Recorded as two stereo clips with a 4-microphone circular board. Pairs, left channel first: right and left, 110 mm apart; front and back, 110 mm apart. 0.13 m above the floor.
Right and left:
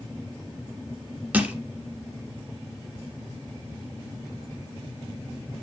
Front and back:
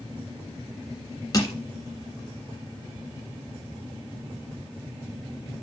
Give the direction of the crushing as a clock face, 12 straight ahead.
11 o'clock.